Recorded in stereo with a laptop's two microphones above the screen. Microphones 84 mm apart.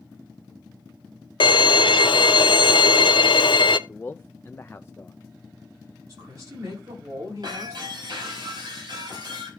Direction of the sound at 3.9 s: 25° left (ahead or behind).